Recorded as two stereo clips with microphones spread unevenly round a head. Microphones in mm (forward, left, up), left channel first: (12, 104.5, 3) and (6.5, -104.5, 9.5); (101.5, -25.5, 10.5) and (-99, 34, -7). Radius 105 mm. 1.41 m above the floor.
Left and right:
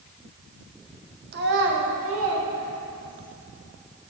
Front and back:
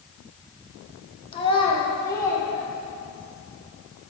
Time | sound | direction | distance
1.3 | a child speaking | 65° right | 0.8 m